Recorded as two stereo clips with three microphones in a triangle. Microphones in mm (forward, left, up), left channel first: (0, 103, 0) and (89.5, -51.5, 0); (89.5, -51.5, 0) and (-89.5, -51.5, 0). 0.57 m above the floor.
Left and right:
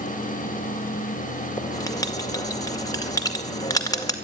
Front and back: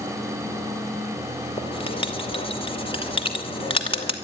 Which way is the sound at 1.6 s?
55° left.